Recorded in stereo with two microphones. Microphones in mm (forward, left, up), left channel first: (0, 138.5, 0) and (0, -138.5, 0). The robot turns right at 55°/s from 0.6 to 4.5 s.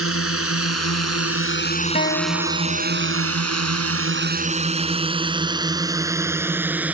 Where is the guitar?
35° left; by 3.3 s 115° left.